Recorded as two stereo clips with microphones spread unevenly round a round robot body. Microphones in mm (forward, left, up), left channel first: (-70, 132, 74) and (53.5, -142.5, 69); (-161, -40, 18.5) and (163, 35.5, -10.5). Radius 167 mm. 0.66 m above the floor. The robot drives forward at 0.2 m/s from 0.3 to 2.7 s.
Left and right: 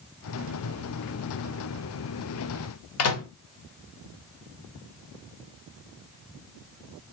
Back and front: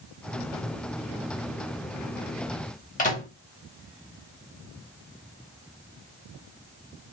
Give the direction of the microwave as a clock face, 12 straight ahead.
8 o'clock.